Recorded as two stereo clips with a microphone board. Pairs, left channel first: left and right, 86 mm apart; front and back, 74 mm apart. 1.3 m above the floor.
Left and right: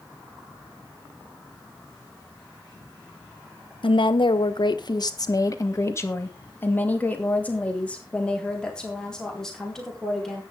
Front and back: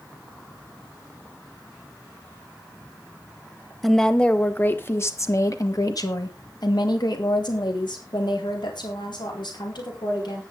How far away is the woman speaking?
About 1.5 m.